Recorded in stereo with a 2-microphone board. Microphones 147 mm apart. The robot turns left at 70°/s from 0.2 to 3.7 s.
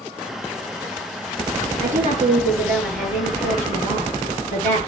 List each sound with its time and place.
1.8 s a woman speaking: 105° right, 8.5 m; by 4.8 s 120° left, 8.5 m